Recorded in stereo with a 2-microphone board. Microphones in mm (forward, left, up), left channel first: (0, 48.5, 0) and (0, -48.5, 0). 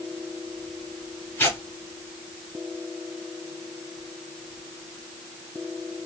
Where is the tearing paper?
20° left (ahead or behind), 2 m.